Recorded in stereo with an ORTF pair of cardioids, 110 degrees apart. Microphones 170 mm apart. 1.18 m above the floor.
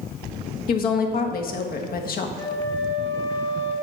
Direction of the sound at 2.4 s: 30° left.